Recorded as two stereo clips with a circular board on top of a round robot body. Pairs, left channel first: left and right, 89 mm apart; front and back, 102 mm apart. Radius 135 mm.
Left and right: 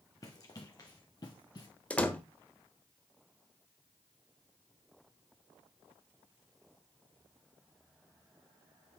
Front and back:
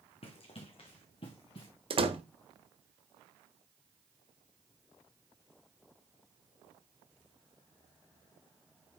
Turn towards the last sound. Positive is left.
turn(degrees=165)